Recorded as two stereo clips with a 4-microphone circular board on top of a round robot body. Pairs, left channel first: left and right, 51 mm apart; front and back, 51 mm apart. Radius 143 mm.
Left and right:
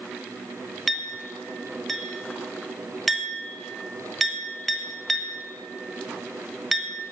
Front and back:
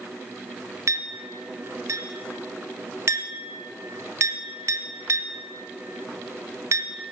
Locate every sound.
0.9 s a clink: straight behind, 1.0 m